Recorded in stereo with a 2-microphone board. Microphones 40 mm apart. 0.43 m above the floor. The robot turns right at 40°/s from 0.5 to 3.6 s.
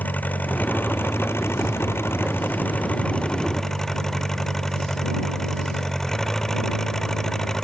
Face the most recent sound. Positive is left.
turn(degrees=170)